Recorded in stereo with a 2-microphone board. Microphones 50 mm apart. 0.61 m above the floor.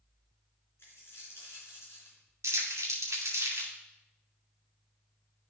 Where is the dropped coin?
50° left (ahead or behind), 3 m.